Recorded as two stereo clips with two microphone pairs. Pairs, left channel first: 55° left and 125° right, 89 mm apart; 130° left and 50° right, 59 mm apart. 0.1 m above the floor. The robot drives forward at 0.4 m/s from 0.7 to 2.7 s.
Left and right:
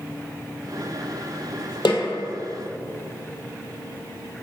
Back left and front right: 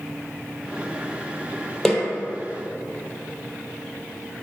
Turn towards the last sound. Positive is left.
turn(degrees=60)